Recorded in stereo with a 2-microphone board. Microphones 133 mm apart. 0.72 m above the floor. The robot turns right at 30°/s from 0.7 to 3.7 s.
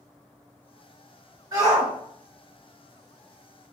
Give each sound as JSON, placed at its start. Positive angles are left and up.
{"t": 1.5, "sound": "a shout", "side_deg": -25, "distance_m": 2.5}